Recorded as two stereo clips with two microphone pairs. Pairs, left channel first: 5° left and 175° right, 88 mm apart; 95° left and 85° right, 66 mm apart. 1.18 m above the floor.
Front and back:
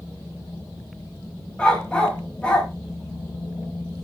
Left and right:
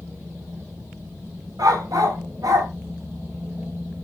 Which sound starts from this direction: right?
A dog barking, at 1.6 s.